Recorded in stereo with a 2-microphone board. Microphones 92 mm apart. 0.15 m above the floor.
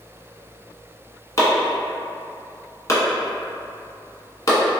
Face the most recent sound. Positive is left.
turn(degrees=35)  # may be behind; listen again after turning